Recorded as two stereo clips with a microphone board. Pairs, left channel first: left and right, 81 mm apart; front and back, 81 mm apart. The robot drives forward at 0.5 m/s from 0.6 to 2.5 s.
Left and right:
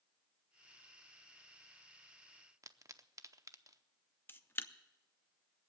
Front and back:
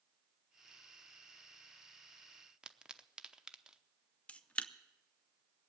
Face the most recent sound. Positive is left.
turn(degrees=60)